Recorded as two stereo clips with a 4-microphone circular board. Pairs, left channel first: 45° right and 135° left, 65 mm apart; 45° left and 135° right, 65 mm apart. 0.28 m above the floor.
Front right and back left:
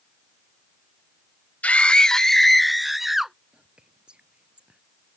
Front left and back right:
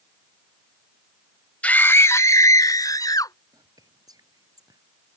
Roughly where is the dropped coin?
I don't hear a dropped coin.